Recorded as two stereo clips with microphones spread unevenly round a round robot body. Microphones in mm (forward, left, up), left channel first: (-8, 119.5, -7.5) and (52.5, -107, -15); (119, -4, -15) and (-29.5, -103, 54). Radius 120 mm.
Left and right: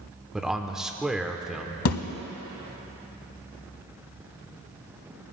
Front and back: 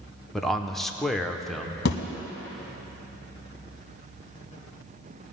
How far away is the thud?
About 1.0 m.